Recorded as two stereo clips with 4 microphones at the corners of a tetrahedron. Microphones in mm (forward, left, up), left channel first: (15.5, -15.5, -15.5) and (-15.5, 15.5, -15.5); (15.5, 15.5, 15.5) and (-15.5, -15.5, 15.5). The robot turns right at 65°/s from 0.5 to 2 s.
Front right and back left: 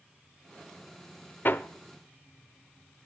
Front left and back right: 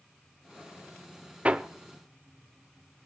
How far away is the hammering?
About 0.7 m.